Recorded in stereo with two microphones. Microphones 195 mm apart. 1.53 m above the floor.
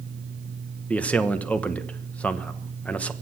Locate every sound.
0.9 s a man speaking: 5° left (ahead or behind), 1.1 m